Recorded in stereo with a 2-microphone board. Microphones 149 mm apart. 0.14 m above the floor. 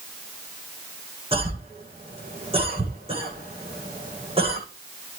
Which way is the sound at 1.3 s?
35° right (ahead or behind).